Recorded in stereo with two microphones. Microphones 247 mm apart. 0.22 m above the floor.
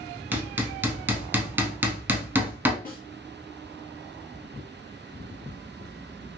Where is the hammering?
10° right (ahead or behind), 0.6 m.